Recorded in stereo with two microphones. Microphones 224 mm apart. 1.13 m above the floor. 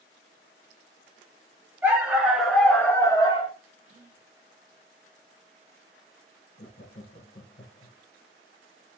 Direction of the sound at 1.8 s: 10° right (ahead or behind).